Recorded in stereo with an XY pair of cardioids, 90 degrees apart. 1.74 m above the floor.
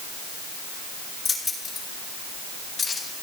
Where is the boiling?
I don't hear boiling.